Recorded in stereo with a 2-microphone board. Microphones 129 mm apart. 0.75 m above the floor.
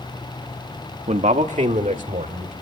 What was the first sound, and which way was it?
A man speaking, 60° right (ahead or behind).